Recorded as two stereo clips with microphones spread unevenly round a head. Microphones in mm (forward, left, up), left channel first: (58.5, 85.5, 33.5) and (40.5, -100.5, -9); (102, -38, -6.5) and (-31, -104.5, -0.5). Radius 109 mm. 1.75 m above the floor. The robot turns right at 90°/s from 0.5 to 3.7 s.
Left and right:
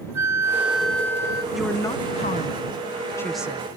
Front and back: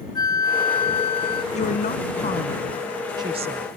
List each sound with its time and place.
0.1 s a flute: 10° right; by 1.4 s 75° left
1.5 s a woman speaking: straight ahead; by 3.7 s 170° right